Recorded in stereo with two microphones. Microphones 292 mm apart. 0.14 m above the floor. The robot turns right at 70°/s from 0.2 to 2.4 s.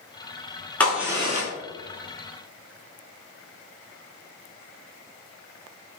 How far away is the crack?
About 0.9 m.